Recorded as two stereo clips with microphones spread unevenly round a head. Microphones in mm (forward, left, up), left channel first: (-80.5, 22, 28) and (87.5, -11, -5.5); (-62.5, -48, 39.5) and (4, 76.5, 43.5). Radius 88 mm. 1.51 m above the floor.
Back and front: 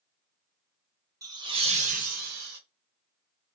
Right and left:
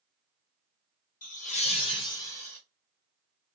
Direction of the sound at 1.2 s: 80° right.